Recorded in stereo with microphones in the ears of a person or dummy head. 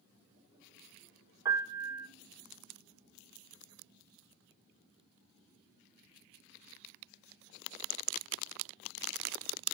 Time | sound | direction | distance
1.4 | a piano | 20° right (ahead or behind) | 1.9 m